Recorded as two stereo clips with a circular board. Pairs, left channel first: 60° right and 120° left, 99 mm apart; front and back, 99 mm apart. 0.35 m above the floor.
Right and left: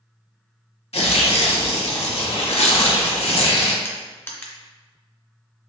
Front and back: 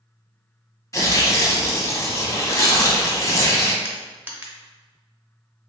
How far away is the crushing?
About 0.6 m.